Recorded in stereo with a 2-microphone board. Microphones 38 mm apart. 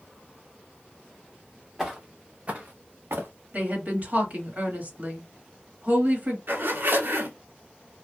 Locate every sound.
1.8 s footsteps: 5° right (ahead or behind), 1.2 m; by 3.3 s 75° right (ahead or behind), 1.2 m
3.5 s a woman speaking: 40° right (ahead or behind), 1.8 m
6.5 s a zipper: 60° right (ahead or behind), 0.9 m